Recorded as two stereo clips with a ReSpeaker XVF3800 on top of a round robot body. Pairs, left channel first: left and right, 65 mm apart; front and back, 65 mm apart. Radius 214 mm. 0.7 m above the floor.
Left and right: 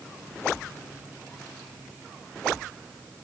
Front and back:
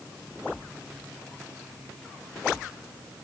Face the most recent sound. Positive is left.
No sound to turn to.